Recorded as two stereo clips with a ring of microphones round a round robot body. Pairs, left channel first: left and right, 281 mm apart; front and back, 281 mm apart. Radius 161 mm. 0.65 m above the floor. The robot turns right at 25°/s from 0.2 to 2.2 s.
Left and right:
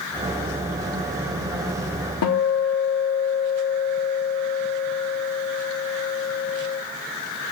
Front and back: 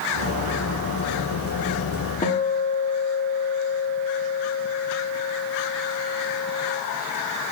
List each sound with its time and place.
2.2 s a guitar: 65° left, 1.3 m